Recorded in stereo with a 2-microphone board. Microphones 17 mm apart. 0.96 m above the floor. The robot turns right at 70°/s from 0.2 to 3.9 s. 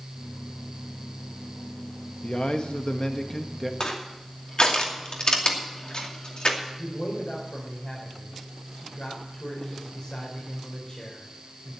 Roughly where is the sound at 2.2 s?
Left.